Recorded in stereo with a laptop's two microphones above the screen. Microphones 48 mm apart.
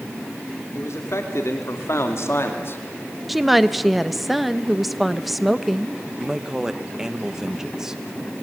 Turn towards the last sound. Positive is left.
turn(degrees=-10)  # may be behind; listen again after turning